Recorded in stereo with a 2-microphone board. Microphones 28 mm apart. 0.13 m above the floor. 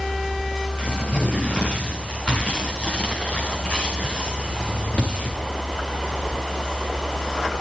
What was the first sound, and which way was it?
Tearing paper, 35° left (ahead or behind).